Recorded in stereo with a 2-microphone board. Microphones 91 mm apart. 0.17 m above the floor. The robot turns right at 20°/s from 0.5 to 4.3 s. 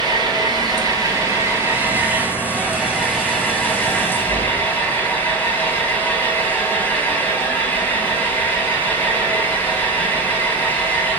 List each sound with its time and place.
0.0 s an engine running: 55° right, 1.7 m; by 11.2 s 25° left, 1.7 m